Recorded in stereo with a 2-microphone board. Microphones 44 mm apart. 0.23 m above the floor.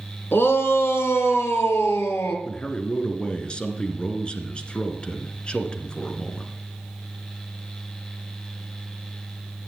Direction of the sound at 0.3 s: 55° left (ahead or behind).